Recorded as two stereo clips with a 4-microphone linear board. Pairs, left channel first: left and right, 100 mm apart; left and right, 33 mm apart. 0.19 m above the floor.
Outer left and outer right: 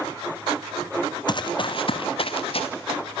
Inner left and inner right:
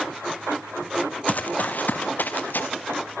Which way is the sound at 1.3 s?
45° left (ahead or behind).